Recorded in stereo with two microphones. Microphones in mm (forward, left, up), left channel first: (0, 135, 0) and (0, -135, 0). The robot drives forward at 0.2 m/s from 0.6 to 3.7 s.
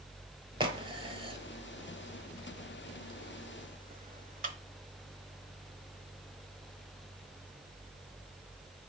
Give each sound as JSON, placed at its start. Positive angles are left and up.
{"t": 0.6, "sound": "a crack", "side_deg": -20, "distance_m": 0.9}